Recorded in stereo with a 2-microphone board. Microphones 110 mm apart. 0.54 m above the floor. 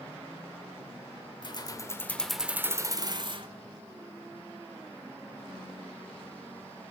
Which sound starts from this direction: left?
Keys jangling, at 1.4 s.